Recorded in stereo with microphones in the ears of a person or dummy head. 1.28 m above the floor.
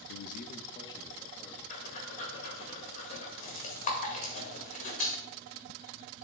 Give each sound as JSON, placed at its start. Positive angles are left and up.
{"t": 0.1, "sound": "a man speaking", "side_deg": 65, "distance_m": 0.5}
{"t": 1.7, "sound": "breathing", "side_deg": 40, "distance_m": 1.7}